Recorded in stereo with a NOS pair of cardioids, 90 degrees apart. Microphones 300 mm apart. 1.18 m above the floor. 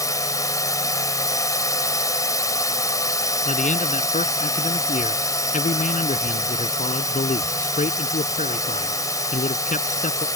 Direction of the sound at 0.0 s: 10° left.